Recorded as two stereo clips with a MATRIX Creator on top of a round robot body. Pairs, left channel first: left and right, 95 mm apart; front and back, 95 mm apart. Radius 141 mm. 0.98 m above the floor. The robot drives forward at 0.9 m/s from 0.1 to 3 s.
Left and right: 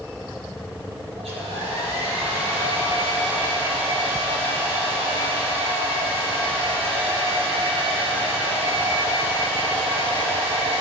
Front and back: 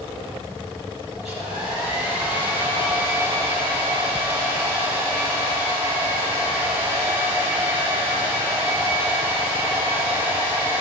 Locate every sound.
1.2 s a hair dryer: 95° right, 6 m; by 10.8 s 110° right, 6.5 m